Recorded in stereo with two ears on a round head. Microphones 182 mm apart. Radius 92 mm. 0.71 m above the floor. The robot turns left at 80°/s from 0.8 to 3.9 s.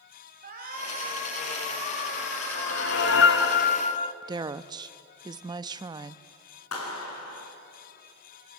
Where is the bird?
I don't hear a bird.